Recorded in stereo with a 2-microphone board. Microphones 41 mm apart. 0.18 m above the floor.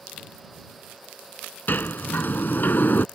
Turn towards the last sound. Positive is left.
turn(degrees=50)  # may be behind; listen again after turning